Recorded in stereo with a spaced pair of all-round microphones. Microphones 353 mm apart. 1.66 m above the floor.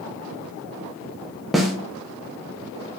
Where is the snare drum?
Centre (ahead or behind), 0.5 m.